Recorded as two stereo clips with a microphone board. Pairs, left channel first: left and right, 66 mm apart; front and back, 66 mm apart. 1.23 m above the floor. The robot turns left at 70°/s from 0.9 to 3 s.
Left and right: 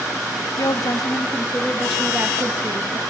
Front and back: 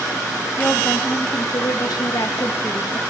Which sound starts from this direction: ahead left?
A woman speaking, at 0.6 s.